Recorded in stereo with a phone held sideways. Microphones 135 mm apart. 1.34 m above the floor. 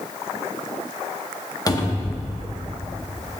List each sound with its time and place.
1.7 s a cupboard door: 30° left (ahead or behind), 0.8 m